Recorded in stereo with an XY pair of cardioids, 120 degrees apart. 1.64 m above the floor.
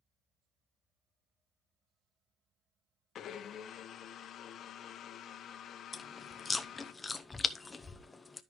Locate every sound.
3.1 s a blender: 60° left, 1.0 m
5.9 s chewing: 25° left, 0.7 m